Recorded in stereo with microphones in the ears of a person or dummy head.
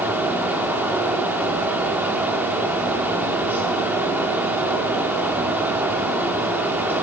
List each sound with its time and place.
0.0 s a fan: 10° right (ahead or behind), 2 m